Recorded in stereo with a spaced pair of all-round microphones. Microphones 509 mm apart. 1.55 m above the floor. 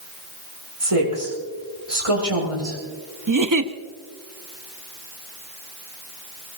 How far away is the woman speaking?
About 6 m.